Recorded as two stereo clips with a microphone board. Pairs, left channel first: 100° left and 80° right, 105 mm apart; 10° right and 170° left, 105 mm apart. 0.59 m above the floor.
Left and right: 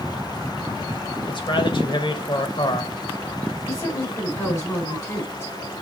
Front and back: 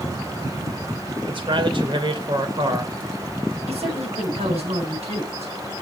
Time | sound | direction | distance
1.2 | a man speaking | 135° left | 2 m
3.7 | a woman speaking | 160° left | 5 m